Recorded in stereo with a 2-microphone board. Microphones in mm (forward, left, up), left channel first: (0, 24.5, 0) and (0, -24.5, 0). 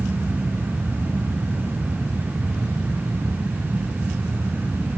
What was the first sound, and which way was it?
Only background noise.